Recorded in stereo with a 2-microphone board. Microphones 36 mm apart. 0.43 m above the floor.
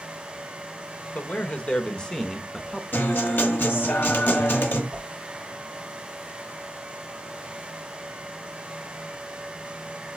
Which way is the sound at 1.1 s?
45° left (ahead or behind).